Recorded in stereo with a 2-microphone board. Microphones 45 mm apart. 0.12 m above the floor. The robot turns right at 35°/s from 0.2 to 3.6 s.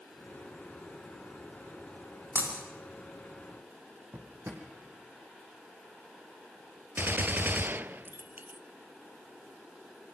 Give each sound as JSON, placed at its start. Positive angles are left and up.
{"t": 2.4, "sound": "breaking glass", "side_deg": -55, "distance_m": 9.5}
{"t": 4.1, "sound": "a drawer", "side_deg": -70, "distance_m": 4.0}
{"t": 7.0, "sound": "a gunshot", "side_deg": -45, "distance_m": 0.6}